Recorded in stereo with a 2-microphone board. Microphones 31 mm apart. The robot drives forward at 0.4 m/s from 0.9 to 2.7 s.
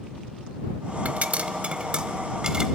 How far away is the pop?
About 0.5 m.